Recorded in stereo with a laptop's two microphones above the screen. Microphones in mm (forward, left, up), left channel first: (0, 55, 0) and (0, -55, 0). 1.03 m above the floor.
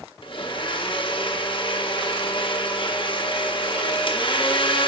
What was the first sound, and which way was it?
A blender, 50° left (ahead or behind).